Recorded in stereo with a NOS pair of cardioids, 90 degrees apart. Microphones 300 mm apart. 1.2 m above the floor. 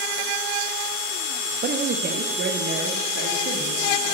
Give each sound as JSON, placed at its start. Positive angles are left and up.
{"t": 1.6, "sound": "a man speaking", "azimuth_deg": -30, "distance_m": 0.7}